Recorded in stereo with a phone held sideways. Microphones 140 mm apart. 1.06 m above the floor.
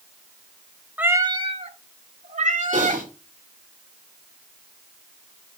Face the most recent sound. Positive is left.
turn(degrees=-70)  # may be behind; listen again after turning